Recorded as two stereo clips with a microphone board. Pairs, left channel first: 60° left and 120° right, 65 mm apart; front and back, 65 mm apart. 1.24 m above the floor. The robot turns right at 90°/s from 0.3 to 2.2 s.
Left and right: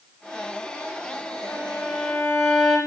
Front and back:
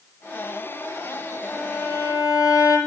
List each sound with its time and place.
1.4 s a violin: 90° right, 9.5 m; by 2.8 s 20° right, 9.5 m